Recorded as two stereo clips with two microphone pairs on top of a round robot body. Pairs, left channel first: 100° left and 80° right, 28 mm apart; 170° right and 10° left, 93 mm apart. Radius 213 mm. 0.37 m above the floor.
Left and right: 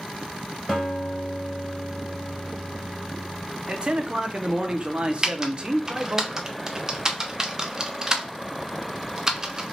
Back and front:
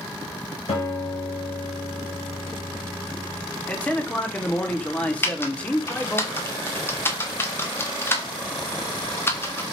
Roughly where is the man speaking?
Right.